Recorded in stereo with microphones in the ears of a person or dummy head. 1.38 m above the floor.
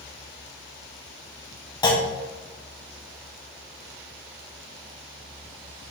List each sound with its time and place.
1.8 s a clunk: 25° left (ahead or behind), 0.6 m